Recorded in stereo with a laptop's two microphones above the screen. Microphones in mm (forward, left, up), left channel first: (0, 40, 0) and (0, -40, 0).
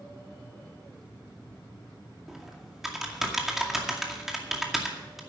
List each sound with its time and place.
2.3 s typing on a keyboard: 5° right (ahead or behind), 2 m